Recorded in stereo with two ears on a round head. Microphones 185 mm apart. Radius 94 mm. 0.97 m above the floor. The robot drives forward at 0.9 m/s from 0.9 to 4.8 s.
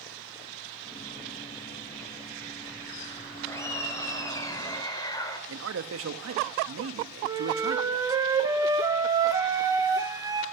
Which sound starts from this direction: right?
A man speaking, at 5.5 s.